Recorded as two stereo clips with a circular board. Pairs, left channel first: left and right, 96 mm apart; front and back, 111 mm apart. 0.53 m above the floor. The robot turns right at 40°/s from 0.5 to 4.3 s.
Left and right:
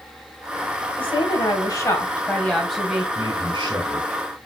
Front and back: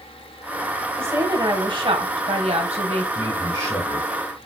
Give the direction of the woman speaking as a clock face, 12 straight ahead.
8 o'clock.